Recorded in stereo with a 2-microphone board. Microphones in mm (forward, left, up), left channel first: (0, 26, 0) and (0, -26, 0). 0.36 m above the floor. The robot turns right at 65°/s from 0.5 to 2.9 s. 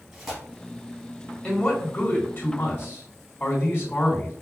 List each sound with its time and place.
0.1 s tearing paper: 5° right (ahead or behind), 2.5 m
1.4 s a man speaking: 20° left, 2.0 m; by 4.3 s 115° left, 2.0 m